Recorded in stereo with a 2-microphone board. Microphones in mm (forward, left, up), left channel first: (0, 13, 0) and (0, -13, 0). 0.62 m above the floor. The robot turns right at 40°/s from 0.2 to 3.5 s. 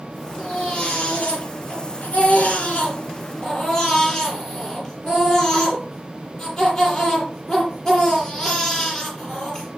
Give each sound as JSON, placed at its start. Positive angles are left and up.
{"t": 0.4, "sound": "a baby crying", "azimuth_deg": 40, "distance_m": 9.5}